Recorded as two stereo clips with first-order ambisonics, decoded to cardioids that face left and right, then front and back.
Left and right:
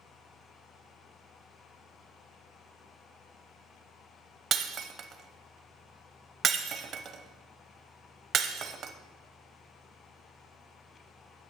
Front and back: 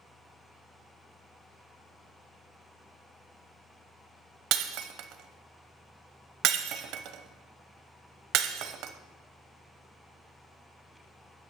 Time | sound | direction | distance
4.5 | breaking glass | 150° right | 1.0 m